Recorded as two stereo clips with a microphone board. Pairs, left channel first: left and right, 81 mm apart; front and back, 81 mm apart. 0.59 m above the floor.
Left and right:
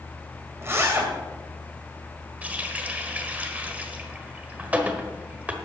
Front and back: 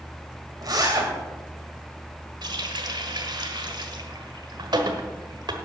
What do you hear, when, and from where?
0.6 s a zipper: 150° right, 2.5 m
2.4 s a running tap: 160° right, 1.3 m